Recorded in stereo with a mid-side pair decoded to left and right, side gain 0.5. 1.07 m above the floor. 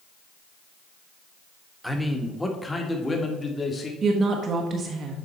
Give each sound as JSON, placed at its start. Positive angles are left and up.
{"t": 1.8, "sound": "a man speaking", "azimuth_deg": 0, "distance_m": 1.5}
{"t": 4.0, "sound": "a woman speaking", "azimuth_deg": -45, "distance_m": 1.1}